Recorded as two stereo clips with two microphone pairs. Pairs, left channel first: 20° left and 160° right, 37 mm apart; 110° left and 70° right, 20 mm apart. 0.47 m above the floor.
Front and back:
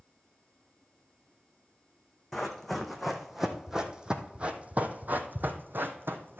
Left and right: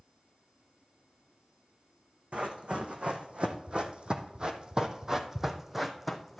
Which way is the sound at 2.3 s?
65° right.